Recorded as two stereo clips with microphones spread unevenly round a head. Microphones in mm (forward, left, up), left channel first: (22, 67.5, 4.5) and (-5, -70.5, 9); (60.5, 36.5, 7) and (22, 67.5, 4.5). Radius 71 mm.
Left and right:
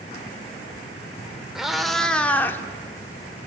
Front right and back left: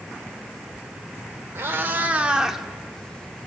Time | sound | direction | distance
1.6 | a cat meowing | 175° left | 1.3 m